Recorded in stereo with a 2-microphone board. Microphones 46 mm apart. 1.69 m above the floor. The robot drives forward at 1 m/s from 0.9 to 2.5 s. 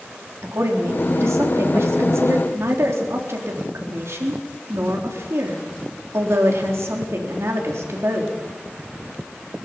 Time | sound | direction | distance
0.4 | a woman speaking | 80° right | 3.5 m